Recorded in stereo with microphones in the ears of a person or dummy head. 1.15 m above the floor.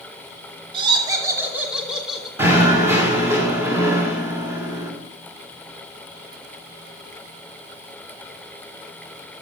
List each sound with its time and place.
0.7 s laughter: 30° right (ahead or behind), 2 m; by 2.3 s centre (ahead or behind), 3.5 m
2.4 s knocking: 15° right (ahead or behind), 1.8 m